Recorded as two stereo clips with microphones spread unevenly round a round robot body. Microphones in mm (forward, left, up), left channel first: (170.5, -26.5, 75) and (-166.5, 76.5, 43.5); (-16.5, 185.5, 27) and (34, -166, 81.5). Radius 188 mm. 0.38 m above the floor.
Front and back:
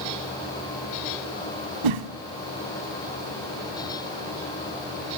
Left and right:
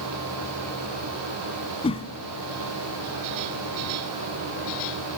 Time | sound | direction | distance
1.8 | a whoosh | 175° left | 0.6 m